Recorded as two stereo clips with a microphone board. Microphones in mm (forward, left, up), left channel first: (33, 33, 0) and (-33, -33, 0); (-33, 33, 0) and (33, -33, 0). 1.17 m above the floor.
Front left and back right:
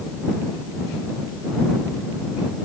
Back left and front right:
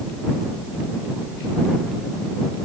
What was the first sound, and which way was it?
Only background noise.